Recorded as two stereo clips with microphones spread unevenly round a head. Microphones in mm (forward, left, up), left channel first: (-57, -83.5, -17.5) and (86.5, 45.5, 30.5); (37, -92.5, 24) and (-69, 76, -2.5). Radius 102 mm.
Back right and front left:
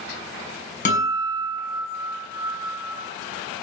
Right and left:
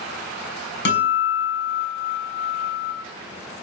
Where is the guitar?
90° right, 6 m.